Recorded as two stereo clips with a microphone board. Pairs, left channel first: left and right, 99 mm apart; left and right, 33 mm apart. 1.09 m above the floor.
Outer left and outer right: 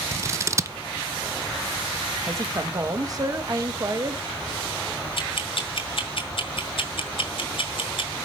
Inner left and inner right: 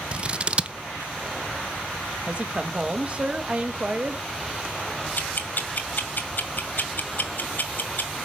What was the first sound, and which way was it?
Scissors, 30° right (ahead or behind).